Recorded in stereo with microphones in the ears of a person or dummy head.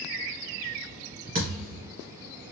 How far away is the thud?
About 2.0 m.